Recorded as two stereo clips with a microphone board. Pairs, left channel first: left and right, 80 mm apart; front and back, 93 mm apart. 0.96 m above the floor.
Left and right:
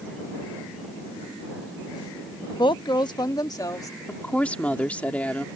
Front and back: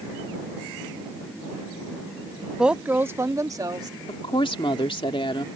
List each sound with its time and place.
2.6 s a woman speaking: 95° left; by 4.0 s 135° left
4.1 s a woman speaking: 15° left